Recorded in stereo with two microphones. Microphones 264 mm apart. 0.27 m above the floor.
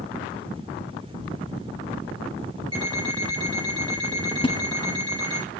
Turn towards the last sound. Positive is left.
turn(degrees=20)  # may be behind; listen again after turning